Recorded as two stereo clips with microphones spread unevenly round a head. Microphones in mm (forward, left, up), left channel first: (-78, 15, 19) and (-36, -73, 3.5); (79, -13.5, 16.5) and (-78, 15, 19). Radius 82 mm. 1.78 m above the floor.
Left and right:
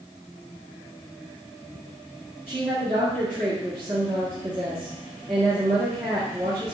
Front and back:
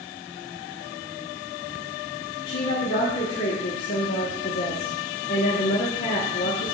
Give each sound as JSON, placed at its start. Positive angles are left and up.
{"t": 2.5, "sound": "a woman speaking", "azimuth_deg": 0, "distance_m": 1.6}